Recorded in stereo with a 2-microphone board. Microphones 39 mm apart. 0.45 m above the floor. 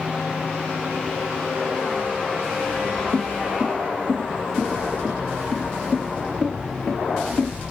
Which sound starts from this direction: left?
Footsteps, at 3.1 s.